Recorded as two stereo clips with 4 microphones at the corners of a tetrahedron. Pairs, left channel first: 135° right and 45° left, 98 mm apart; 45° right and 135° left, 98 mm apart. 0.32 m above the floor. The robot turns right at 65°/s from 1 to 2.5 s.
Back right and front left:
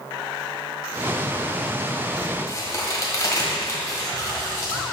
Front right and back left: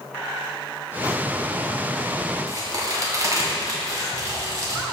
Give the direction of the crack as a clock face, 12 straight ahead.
6 o'clock.